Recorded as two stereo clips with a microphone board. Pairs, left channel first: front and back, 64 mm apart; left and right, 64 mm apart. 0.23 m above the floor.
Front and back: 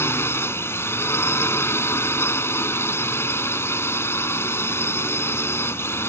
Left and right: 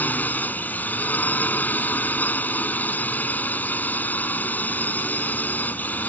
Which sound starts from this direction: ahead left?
A drone, at 0.0 s.